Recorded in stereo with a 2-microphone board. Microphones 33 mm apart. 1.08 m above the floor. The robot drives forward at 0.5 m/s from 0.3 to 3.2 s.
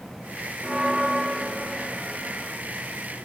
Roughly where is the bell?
Centre.